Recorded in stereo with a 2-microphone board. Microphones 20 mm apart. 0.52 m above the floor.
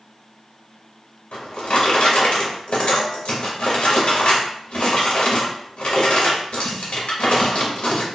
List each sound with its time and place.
1.3 s a drawer: 80° left, 0.8 m